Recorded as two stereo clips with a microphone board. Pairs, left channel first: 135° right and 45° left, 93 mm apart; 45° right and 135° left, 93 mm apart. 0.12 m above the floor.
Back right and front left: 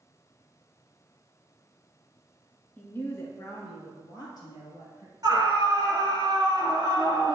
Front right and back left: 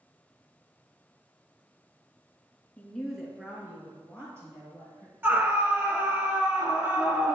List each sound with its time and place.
2.8 s a woman speaking: 100° right, 1.2 m; by 5.1 s 170° right, 3 m
5.2 s a scream: 80° left, 1.8 m